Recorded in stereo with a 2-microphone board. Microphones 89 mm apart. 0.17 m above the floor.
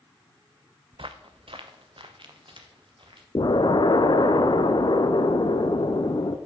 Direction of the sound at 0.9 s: 75° right (ahead or behind).